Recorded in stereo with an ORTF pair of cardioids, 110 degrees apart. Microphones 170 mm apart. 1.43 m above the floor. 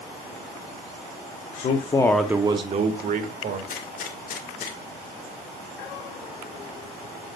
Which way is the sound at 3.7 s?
55° left.